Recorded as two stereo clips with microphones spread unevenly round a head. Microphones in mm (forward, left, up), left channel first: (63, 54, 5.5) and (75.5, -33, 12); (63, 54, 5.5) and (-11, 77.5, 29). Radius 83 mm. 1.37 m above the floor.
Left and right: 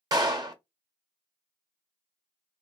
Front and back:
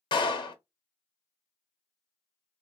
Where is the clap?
35° right, 0.8 m.